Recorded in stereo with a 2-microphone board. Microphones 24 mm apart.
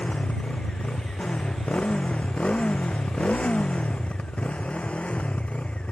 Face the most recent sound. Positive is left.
turn(degrees=65)  # may be behind; listen again after turning